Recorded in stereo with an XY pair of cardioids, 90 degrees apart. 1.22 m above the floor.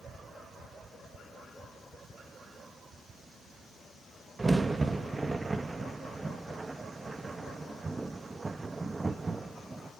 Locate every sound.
4.4 s a crack: 25° right, 1.4 m